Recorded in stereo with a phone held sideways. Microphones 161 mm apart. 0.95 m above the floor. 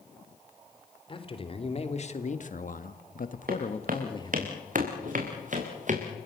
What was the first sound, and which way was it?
A man speaking, 35° left (ahead or behind).